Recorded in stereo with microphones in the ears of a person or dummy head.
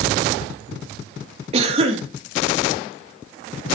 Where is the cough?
30° right (ahead or behind), 2 m.